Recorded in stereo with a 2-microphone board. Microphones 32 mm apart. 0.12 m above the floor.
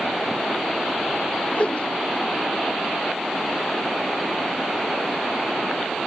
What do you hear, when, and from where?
1.5 s a whoosh: 40° left (ahead or behind)